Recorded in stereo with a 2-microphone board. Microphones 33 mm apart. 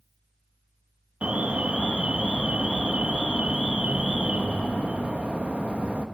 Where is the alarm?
40° right (ahead or behind), 0.7 m.